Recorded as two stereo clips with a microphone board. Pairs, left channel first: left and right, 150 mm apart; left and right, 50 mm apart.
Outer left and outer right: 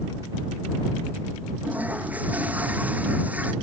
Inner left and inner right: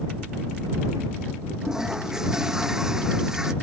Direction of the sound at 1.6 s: 10° right (ahead or behind).